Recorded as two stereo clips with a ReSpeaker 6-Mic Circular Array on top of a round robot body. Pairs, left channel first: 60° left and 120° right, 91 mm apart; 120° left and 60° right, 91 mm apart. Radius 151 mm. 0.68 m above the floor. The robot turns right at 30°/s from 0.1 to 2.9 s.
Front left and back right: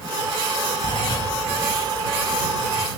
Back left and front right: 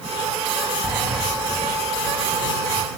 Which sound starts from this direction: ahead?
A sliding door, at 0.8 s.